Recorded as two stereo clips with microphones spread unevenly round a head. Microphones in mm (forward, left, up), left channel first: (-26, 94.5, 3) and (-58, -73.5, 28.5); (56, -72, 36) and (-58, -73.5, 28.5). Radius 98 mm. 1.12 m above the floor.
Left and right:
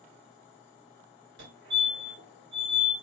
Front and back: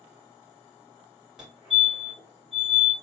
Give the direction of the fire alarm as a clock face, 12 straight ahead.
3 o'clock.